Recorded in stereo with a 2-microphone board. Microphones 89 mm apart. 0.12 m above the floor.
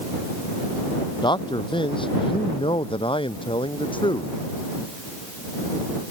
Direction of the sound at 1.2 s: 60° left (ahead or behind).